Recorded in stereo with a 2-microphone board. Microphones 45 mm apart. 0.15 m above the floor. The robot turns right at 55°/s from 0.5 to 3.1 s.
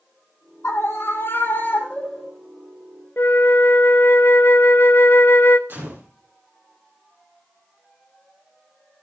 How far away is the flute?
About 0.6 m.